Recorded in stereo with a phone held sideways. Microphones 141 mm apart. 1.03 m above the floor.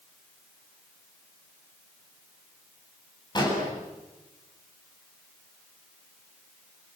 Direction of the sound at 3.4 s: 30° left (ahead or behind).